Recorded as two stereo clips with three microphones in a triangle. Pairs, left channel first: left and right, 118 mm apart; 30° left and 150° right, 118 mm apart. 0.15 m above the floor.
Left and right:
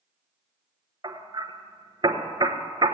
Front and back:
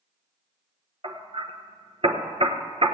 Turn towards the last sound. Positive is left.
turn(degrees=-135)